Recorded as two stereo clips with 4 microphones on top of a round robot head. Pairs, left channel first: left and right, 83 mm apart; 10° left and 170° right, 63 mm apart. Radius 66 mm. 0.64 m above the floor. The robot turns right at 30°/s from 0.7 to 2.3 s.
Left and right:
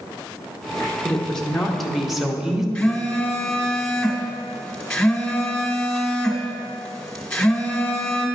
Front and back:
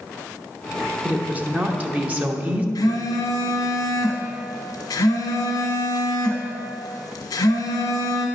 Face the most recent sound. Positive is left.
turn(degrees=10)